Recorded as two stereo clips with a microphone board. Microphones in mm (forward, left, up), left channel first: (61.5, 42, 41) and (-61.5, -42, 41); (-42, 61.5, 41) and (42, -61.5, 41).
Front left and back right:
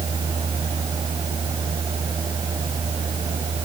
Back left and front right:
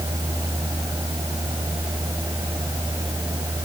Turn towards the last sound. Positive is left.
No sound to turn to.